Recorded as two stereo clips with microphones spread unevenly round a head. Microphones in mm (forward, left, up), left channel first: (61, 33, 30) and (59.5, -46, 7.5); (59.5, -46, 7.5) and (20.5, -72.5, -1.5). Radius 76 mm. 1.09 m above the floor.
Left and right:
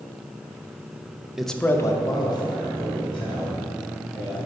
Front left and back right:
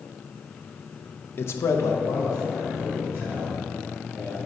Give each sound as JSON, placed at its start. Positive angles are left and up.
{"t": 1.4, "sound": "a man speaking", "azimuth_deg": -10, "distance_m": 0.6}